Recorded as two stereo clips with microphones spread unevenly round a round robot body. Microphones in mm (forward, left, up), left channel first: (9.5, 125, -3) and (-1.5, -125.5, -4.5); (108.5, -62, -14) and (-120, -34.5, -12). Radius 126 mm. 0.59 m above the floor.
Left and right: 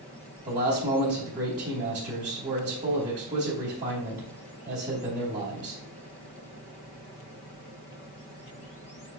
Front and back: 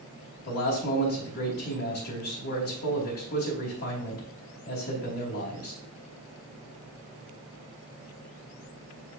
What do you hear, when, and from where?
0.5 s a man speaking: 40° right, 3 m